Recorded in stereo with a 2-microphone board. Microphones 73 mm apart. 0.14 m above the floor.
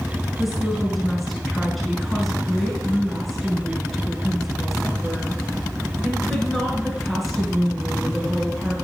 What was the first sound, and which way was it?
A woman speaking, centre (ahead or behind).